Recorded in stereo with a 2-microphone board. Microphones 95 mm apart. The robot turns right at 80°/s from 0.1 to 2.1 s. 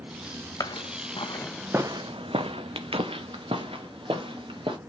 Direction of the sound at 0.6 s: 40° left (ahead or behind).